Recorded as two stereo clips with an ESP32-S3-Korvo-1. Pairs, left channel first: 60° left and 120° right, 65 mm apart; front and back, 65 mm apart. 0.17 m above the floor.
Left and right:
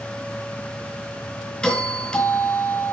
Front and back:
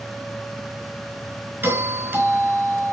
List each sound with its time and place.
1.6 s a doorbell: 135° left, 3.5 m